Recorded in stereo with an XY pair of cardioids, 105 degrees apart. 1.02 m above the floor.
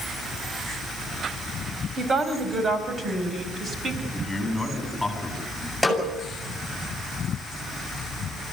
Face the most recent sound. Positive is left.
turn(degrees=0)